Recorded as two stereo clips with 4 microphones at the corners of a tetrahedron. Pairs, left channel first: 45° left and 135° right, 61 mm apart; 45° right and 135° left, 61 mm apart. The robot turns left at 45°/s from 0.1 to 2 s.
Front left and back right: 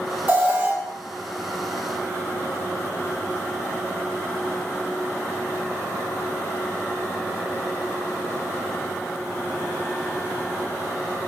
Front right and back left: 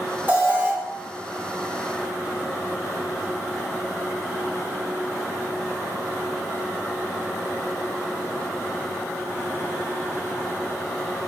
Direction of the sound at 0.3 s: Straight behind.